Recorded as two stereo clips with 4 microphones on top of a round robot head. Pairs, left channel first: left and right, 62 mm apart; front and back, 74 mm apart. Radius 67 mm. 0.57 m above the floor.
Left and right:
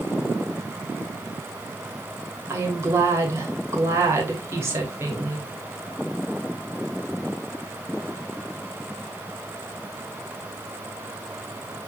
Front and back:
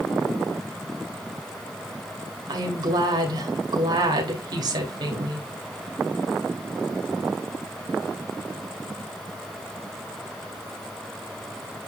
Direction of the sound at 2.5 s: 140° right.